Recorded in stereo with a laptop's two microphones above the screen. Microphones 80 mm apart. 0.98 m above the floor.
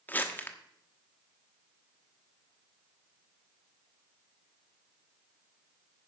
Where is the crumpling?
25° left (ahead or behind), 1.2 m.